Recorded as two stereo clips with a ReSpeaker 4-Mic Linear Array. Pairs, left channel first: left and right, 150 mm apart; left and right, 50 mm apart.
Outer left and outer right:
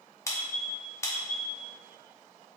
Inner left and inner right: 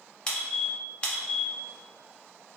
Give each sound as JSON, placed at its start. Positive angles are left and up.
{"t": 0.3, "sound": "a squeak", "side_deg": 20, "distance_m": 0.5}